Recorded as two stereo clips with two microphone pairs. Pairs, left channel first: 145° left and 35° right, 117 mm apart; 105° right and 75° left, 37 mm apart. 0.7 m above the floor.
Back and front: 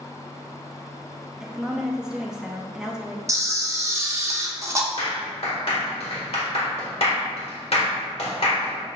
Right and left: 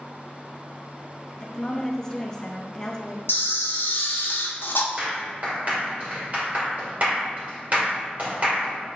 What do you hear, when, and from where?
1.4 s a woman speaking: 105° right, 0.5 m
3.3 s a camera shutter: 95° right, 0.5 m
5.0 s a clap: 120° left, 1.6 m